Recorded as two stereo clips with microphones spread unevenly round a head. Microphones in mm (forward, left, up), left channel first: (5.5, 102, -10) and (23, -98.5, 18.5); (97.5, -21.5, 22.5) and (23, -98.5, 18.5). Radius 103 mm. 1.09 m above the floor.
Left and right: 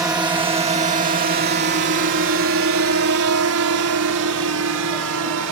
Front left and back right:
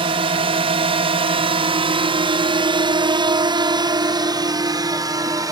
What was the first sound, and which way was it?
A drone, 160° right.